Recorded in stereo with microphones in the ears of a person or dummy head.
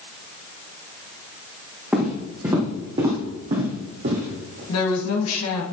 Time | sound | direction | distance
1.9 | footsteps | 5° right (ahead or behind) | 2 m
4.7 | a woman speaking | 75° left (ahead or behind) | 2 m